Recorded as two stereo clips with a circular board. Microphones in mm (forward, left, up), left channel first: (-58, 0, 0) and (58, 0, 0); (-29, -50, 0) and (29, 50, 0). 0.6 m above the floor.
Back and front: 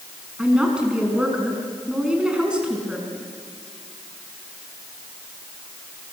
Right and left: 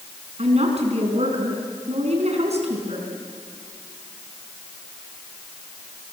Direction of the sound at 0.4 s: 80° left.